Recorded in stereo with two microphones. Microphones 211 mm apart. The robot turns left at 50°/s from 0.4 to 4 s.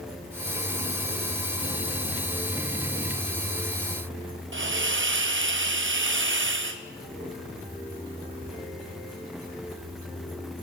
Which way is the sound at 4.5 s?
65° right (ahead or behind).